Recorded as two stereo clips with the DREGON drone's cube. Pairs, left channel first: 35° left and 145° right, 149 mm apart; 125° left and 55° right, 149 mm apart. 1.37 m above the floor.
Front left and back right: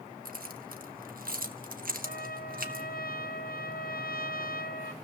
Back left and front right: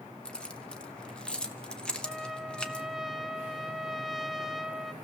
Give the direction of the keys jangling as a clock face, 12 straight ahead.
5 o'clock.